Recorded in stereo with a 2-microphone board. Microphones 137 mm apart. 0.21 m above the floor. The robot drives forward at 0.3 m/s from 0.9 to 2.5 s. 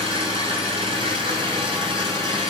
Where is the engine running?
45° right (ahead or behind), 8 m.